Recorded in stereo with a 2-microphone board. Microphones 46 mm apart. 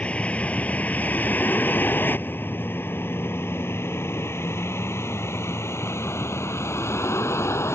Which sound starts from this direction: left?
A vehicle, at 0.0 s.